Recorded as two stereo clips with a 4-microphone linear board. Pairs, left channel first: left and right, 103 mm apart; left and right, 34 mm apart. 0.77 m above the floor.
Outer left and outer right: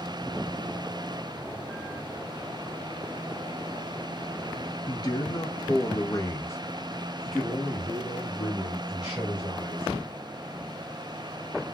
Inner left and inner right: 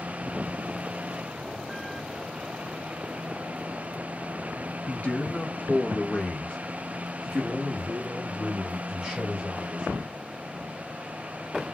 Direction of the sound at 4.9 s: 40° left (ahead or behind).